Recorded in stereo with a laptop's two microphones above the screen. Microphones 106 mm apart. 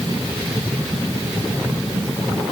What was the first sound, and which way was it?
Only background noise.